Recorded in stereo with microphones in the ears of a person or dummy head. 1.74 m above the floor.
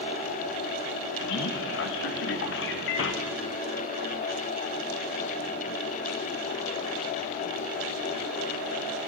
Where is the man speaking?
70° left (ahead or behind), 1.9 m.